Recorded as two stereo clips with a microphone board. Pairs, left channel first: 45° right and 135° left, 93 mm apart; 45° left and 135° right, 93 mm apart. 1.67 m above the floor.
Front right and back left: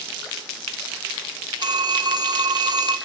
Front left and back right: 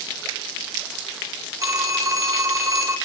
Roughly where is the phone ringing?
Behind.